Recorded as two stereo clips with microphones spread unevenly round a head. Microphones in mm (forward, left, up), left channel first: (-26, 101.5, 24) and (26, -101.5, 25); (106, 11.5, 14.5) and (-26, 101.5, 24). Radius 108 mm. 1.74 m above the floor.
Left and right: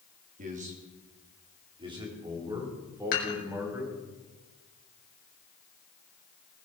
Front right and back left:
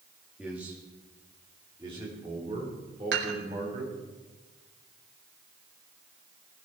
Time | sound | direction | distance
0.4 | a man speaking | 130° right | 3 m
3.1 | dishes clattering | 155° left | 5 m